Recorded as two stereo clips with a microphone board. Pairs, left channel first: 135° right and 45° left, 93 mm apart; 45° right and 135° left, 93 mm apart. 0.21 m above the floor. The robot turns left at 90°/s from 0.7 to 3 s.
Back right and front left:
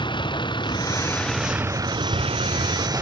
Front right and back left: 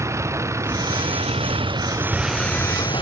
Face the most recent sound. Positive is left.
turn(degrees=-15)